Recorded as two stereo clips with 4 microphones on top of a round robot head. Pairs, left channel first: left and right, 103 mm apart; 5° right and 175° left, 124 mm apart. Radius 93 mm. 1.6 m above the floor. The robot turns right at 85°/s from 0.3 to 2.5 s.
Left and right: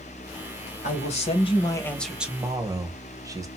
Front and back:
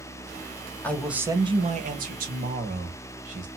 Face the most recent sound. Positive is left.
turn(degrees=-150)